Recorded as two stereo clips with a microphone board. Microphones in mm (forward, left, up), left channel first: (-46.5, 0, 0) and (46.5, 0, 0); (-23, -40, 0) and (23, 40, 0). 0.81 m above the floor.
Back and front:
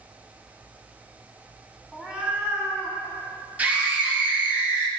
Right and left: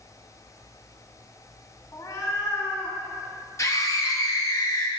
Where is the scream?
70° right, 0.7 m.